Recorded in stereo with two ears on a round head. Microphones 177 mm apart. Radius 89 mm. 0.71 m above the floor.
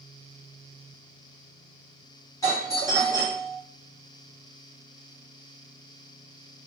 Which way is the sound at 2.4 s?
15° left (ahead or behind).